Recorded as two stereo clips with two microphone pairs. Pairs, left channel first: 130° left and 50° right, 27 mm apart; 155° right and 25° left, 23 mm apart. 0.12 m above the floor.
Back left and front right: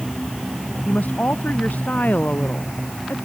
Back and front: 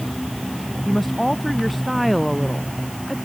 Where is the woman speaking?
120° left.